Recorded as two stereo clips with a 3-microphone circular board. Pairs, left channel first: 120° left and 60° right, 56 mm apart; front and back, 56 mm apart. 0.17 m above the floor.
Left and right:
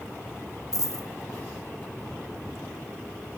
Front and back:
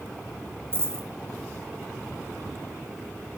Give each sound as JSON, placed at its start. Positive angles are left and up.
{"t": 0.7, "sound": "a dropped coin", "azimuth_deg": 130, "distance_m": 1.1}